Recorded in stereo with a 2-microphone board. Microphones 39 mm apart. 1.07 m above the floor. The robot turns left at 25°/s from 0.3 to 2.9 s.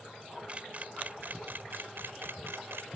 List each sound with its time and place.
0.5 s a camera shutter: 35° right (ahead or behind); by 2.9 s 85° right